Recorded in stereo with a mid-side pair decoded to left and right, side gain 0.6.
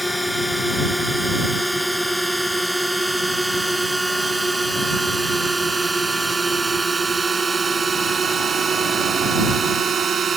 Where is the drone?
Straight ahead; by 10.4 s 35° right.